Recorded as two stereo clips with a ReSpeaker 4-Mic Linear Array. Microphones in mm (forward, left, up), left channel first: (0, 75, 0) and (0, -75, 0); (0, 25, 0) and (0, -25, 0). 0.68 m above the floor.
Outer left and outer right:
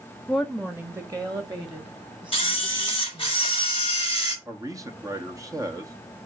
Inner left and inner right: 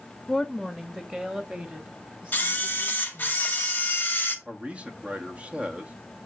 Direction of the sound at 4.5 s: 20° right (ahead or behind).